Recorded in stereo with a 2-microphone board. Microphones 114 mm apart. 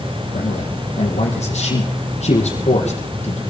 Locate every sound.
0.3 s a man speaking: 65° left (ahead or behind), 4.5 m